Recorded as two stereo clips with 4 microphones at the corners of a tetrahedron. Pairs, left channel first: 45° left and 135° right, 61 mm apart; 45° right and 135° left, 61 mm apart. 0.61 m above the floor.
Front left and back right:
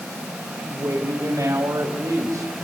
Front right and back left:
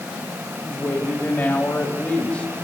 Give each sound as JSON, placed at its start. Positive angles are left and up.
{"t": 0.6, "sound": "a woman speaking", "azimuth_deg": -90, "distance_m": 3.0}